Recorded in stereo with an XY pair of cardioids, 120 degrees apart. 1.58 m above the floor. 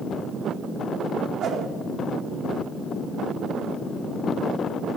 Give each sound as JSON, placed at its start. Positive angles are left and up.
{"t": 1.4, "sound": "a whoosh", "azimuth_deg": -70, "distance_m": 3.5}